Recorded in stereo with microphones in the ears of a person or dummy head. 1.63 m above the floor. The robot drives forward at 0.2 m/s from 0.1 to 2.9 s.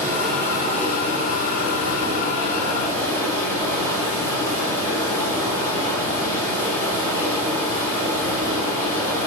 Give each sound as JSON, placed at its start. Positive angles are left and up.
{"t": 0.0, "sound": "running water", "side_deg": -50, "distance_m": 5.0}